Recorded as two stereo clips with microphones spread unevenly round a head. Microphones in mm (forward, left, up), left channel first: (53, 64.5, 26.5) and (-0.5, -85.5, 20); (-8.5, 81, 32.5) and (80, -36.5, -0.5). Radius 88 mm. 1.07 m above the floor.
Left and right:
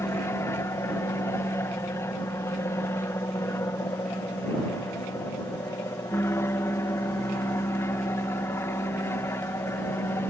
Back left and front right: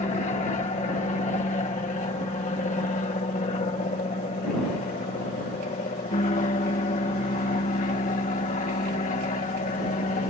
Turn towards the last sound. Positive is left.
turn(degrees=140)